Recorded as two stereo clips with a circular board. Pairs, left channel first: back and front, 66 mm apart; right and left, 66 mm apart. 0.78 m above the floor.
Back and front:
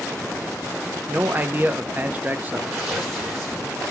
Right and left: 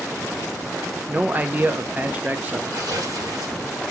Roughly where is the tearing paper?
Left.